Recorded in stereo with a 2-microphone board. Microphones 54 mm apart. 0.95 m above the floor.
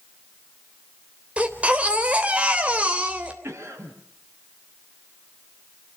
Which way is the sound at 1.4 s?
20° right (ahead or behind).